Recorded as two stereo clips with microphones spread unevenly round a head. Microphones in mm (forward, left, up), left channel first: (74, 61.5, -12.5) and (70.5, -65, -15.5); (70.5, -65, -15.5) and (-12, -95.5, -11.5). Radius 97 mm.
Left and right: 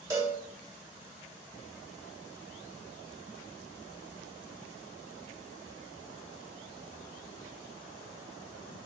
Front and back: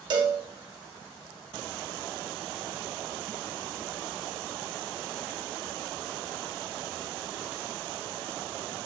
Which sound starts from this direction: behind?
A cowbell, at 0.1 s.